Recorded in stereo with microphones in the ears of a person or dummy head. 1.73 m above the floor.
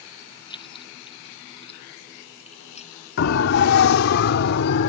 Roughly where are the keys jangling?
Left.